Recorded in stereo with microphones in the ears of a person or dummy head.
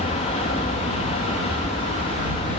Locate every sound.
0.0 s an aircraft: 30° left (ahead or behind)